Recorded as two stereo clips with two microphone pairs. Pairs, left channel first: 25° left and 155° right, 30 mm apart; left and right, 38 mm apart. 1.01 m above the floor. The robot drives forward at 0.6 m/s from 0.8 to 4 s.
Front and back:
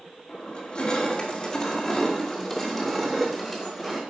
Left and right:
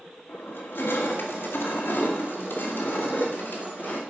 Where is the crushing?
90° left, 2 m; by 4.0 s 130° left, 3 m.